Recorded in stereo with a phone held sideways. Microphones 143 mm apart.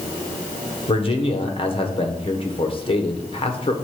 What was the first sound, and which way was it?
A man speaking, 40° left (ahead or behind).